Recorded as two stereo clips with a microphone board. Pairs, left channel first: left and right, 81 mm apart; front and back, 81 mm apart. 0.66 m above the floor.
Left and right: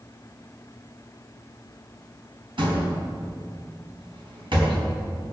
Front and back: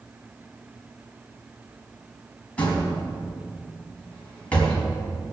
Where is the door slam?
75° right, 4 m.